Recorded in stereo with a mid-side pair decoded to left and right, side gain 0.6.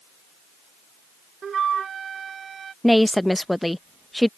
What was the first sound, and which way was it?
A flute, 35° right.